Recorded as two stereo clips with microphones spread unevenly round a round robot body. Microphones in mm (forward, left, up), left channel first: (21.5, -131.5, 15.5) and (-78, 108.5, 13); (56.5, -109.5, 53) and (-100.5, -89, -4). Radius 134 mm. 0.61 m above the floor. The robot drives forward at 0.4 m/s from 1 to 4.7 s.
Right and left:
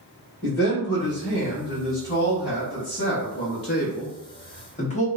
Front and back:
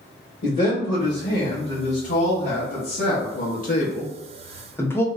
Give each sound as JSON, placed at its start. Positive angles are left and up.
{"t": 0.4, "sound": "a man speaking", "azimuth_deg": -15, "distance_m": 1.5}